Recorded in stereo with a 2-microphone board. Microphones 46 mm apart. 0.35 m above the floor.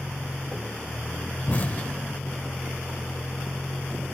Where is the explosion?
35° left (ahead or behind).